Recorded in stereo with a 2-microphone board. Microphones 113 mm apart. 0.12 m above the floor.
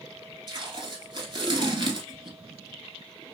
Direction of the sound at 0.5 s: 40° right (ahead or behind).